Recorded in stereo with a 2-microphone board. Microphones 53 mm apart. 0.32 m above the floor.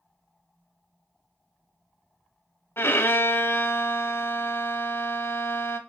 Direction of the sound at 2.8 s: 50° left (ahead or behind).